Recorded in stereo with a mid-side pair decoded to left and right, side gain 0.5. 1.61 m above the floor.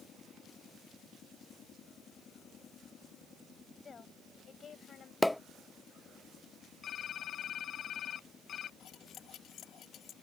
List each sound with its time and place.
3.8 s a woman speaking: 40° left; by 5.1 s 50° left
5.2 s a pop: 10° left
6.8 s typing on a keyboard: 55° left
8.8 s cutlery clinking: 65° left